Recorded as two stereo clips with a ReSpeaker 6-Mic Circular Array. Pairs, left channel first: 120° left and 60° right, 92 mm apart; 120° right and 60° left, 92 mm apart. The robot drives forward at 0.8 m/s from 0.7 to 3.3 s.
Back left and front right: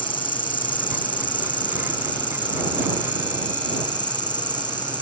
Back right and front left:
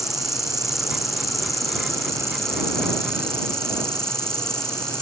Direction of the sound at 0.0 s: 145° left.